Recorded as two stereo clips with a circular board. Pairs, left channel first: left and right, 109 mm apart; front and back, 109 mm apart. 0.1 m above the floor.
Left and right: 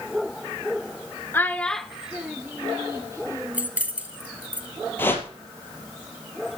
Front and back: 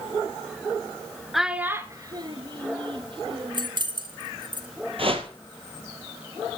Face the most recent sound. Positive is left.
turn(degrees=160)